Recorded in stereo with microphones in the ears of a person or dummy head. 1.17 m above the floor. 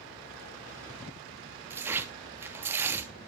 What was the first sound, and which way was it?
Tearing paper, 15° right (ahead or behind).